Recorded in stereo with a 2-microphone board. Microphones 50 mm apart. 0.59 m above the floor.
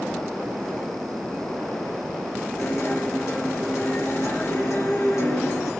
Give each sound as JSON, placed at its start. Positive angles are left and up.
{"t": 2.6, "sound": "a guitar", "side_deg": 65, "distance_m": 2.0}